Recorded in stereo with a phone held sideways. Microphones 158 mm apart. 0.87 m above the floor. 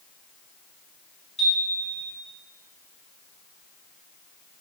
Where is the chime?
45° left (ahead or behind), 1.3 m.